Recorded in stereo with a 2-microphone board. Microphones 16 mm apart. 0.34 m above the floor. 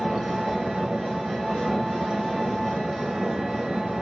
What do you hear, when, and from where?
0.0 s an engine running: 60° right (ahead or behind), 0.8 m